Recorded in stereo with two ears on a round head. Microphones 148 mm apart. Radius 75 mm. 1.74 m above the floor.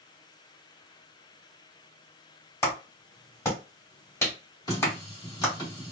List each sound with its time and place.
2.6 s a clap: 15° left (ahead or behind), 1.7 m
4.7 s a running tap: 25° left (ahead or behind), 1.7 m